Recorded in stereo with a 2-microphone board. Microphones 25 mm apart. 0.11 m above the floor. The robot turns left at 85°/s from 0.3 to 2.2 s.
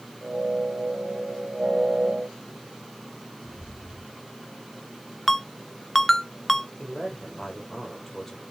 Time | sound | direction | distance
3.5 | footsteps | 80° right | 3 m
5.3 | a ringtone | 15° left (ahead or behind) | 0.5 m
6.8 | a man speaking | 15° left (ahead or behind) | 4 m